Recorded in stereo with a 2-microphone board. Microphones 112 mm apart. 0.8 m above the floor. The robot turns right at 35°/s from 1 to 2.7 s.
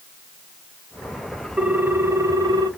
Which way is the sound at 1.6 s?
165° right.